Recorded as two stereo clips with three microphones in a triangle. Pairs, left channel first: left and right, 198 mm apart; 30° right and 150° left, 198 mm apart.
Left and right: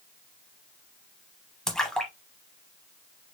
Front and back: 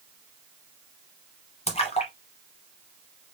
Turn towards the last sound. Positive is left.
turn(degrees=5)